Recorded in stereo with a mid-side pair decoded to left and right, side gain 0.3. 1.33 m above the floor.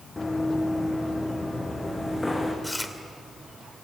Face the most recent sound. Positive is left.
turn(degrees=15)